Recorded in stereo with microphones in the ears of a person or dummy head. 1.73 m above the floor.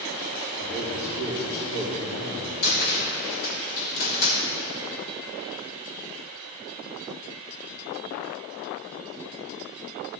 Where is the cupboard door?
50° left (ahead or behind), 1.5 m.